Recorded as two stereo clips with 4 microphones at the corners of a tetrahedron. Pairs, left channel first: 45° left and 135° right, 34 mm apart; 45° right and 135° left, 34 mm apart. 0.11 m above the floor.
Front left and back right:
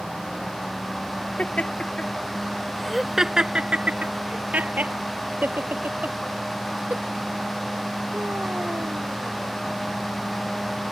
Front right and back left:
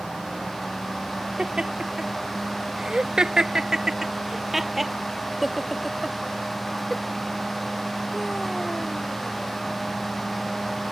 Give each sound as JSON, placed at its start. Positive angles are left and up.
{"t": 1.4, "sound": "laughter", "azimuth_deg": 75}